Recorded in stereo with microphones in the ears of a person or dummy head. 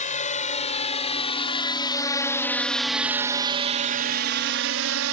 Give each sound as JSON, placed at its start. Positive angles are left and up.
{"t": 0.0, "sound": "a drone", "side_deg": 35}